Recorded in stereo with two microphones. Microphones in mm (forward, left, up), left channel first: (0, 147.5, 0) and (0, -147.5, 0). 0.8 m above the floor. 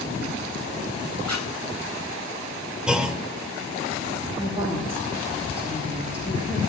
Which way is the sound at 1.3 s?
75° right (ahead or behind).